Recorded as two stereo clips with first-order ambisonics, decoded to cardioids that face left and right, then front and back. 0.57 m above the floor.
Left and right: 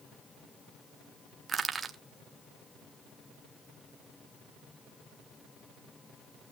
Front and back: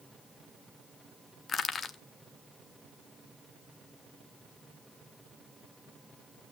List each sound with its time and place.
1.5 s crushing: 40° right, 0.8 m